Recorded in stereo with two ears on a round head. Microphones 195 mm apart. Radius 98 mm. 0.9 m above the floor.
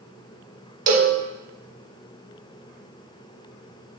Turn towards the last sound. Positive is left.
turn(degrees=-40)  # may be behind; listen again after turning